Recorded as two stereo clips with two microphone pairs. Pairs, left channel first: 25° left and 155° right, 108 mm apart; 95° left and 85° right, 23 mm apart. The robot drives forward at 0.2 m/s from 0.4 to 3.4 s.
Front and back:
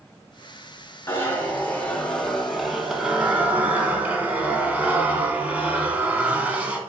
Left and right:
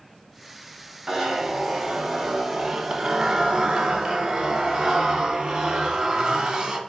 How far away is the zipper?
About 0.7 m.